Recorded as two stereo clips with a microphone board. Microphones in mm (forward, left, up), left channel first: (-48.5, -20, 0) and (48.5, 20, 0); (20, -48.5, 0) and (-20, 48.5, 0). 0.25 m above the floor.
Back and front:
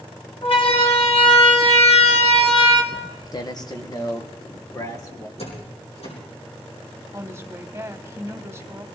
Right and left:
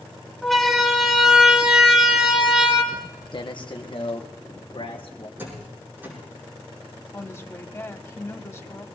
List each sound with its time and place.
0.4 s a siren: 155° right, 2 m; by 2.8 s 165° right, 3 m
2.9 s footsteps: 110° right, 1.3 m; by 5.3 s 100° right, 4 m
5.4 s a door slam: 175° right, 8.5 m
7.1 s a woman speaking: 25° right, 1.1 m